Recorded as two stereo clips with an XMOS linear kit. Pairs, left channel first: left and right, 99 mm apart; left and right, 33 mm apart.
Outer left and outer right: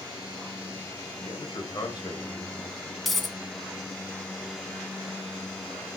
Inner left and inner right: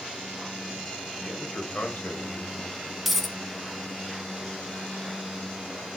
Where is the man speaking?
50° left (ahead or behind), 1.5 m.